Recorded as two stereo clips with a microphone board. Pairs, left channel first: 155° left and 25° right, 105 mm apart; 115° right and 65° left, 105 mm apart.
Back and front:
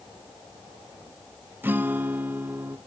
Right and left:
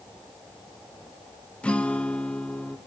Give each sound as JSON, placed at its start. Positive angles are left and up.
{"t": 1.6, "sound": "a guitar", "azimuth_deg": -55, "distance_m": 0.7}